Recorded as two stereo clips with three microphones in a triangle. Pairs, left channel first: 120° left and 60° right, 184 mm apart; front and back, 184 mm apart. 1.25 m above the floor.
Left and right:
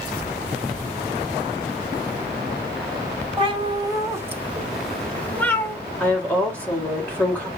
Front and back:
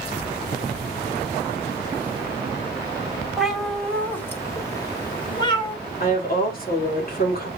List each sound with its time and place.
3.4 s a cat meowing: 95° right, 1.1 m; by 5.8 s 50° left, 1.3 m
6.0 s a woman speaking: 40° left, 2 m